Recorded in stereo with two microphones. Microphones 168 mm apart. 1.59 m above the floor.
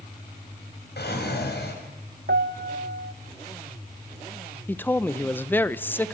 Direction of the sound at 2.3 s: 80° right.